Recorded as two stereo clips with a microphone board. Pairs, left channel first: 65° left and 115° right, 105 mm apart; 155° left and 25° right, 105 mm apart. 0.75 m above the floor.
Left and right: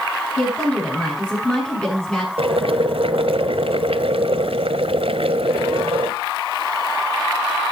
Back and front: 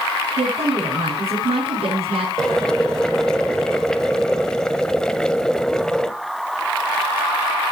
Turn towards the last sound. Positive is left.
turn(degrees=-120)